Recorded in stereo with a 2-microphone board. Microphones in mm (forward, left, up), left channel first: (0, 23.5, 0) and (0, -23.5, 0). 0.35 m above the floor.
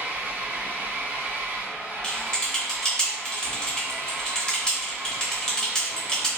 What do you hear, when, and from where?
0.0 s an engine running: 40° right (ahead or behind), 0.9 m
2.0 s typing on a keyboard: 15° left (ahead or behind), 1.0 m